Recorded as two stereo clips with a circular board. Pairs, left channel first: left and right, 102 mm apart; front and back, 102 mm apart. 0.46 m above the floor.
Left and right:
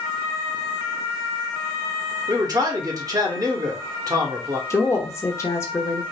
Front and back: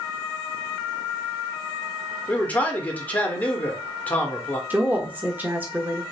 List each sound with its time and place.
2.3 s a man speaking: 65° right, 1.0 m
4.7 s a woman speaking: 125° left, 0.8 m